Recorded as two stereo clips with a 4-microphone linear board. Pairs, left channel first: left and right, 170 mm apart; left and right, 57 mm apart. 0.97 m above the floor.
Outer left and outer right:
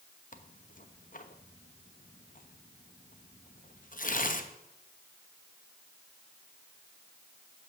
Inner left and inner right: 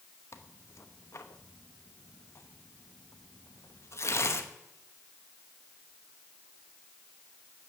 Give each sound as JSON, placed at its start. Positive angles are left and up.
{"t": 0.3, "sound": "tearing paper", "side_deg": 55, "distance_m": 1.0}